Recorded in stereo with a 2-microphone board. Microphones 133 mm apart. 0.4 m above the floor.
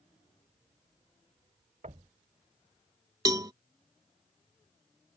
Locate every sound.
1.8 s knocking: 65° right (ahead or behind)
3.2 s a cowbell: 30° right (ahead or behind)